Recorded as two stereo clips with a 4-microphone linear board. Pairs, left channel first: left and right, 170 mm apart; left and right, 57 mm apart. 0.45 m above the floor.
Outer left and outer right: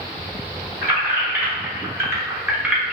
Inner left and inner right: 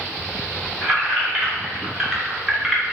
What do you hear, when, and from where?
0.8 s keys jangling: 15° right (ahead or behind), 1.7 m; by 3.0 s 5° right (ahead or behind), 1.0 m